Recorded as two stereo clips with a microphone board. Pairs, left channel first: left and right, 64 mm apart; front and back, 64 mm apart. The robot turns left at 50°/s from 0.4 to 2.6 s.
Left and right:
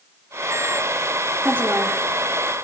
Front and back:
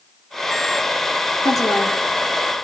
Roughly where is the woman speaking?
Ahead right.